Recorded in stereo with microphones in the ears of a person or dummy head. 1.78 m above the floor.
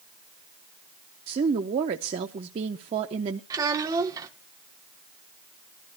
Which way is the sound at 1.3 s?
30° right (ahead or behind).